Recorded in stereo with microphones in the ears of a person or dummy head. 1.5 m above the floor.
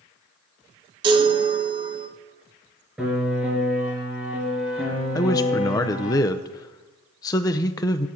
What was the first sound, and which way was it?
A chime, 25° right (ahead or behind).